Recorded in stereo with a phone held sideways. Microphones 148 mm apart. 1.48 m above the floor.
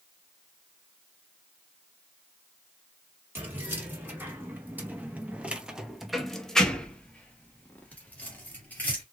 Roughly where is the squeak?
No squeak in this recording.